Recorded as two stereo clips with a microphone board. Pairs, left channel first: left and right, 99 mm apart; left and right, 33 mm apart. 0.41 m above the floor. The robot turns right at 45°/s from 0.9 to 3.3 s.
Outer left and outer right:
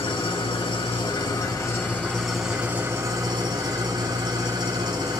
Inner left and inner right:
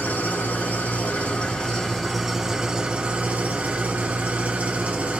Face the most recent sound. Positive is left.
turn(degrees=-135)